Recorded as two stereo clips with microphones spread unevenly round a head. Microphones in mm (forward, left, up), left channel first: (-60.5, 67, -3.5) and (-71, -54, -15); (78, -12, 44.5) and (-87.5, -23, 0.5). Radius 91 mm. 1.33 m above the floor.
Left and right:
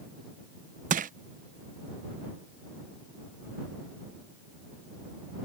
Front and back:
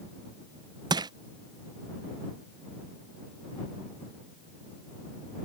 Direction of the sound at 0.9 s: 105° right.